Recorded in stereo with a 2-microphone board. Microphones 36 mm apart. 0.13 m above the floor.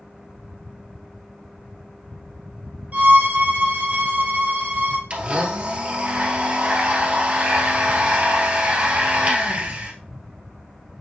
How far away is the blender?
About 1.6 m.